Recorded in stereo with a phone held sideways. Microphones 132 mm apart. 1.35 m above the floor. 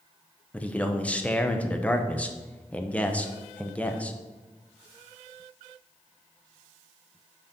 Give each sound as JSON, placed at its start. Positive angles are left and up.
{"t": 0.5, "sound": "a man speaking", "side_deg": 10, "distance_m": 0.8}